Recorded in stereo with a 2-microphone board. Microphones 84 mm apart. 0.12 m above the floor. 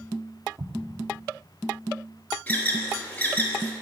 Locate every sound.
0.6 s an explosion: 50° right (ahead or behind), 0.6 m
2.5 s an alarm: 20° left (ahead or behind), 1.2 m